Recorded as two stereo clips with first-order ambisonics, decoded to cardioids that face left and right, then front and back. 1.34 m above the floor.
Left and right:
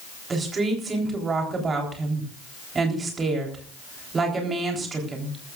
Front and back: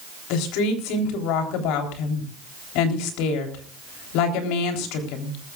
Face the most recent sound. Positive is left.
turn(degrees=-20)